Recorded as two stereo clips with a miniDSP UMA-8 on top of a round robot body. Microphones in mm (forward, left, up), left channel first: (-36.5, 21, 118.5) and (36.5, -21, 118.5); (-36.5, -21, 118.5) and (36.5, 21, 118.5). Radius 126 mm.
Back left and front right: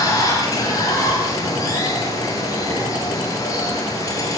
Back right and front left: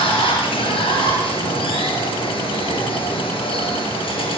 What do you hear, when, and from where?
0.0 s running water: 160° right, 5 m